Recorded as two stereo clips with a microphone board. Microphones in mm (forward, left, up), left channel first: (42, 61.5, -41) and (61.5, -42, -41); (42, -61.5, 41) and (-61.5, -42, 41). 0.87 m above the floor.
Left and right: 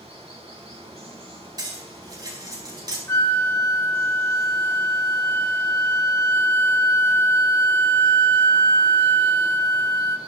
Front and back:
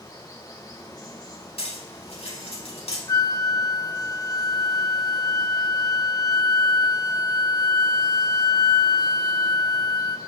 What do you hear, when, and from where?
0.0 s running water: 60° right, 4.5 m
1.6 s cutlery clinking: 30° right, 4.5 m
3.1 s a flute: 35° left, 0.9 m